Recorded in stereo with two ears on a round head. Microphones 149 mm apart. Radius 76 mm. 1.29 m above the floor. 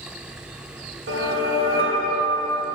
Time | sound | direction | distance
1.1 | a whoosh | 60° right (ahead or behind) | 1.8 m